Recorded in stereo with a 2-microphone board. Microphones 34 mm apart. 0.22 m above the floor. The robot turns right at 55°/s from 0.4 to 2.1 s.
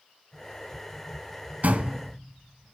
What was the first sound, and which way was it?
A door slam, 50° right (ahead or behind).